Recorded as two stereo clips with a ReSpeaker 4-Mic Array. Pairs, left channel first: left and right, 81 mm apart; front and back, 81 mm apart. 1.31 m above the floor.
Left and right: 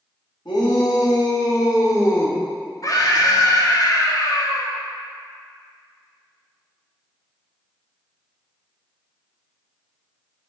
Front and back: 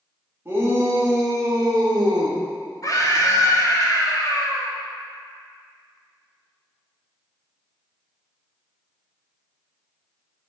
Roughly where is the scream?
Ahead left.